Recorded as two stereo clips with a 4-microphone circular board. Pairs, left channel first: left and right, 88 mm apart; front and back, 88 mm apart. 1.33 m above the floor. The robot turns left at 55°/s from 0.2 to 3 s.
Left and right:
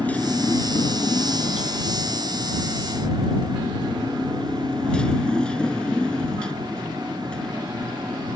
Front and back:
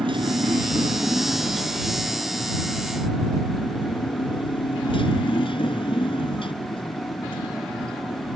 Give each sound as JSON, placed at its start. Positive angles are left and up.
{"t": 0.0, "sound": "a motorcycle", "azimuth_deg": 165}